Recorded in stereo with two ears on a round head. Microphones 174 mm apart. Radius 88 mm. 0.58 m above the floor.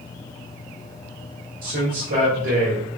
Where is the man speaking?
60° right (ahead or behind), 1.6 m.